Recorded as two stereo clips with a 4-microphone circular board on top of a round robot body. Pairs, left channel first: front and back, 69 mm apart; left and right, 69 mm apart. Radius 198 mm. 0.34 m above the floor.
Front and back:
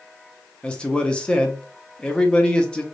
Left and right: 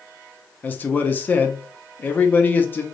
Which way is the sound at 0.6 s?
60° left.